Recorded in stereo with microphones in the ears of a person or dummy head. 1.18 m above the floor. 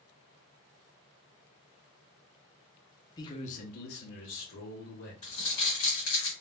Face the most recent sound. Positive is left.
turn(degrees=40)  # may be behind; listen again after turning